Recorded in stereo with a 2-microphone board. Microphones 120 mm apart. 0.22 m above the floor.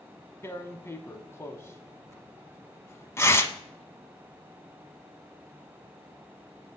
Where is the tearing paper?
25° left (ahead or behind), 0.6 m.